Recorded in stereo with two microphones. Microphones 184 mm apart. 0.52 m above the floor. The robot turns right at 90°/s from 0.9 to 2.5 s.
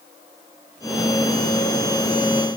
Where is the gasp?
No gasp in this recording.